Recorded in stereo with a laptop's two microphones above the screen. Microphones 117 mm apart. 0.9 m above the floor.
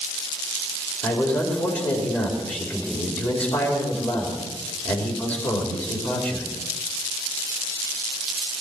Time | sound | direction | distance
1.0 | a man speaking | 15° left (ahead or behind) | 3 m